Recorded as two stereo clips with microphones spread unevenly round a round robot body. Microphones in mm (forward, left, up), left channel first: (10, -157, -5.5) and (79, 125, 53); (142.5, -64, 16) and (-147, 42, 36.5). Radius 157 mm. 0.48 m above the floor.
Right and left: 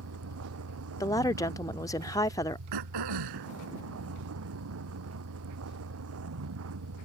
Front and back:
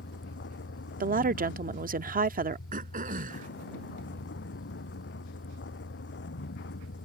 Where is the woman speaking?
155° right.